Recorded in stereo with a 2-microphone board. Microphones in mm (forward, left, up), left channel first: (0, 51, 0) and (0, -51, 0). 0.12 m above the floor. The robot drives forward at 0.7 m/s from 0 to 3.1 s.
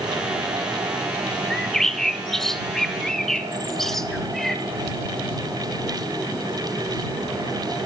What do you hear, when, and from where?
1.5 s a bird: 5° left (ahead or behind), 1.3 m